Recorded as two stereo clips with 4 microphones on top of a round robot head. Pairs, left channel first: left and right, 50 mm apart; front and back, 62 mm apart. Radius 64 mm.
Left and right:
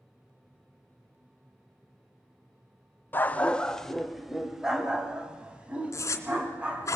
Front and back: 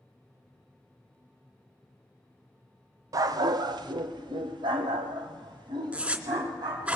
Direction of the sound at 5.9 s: 110° left.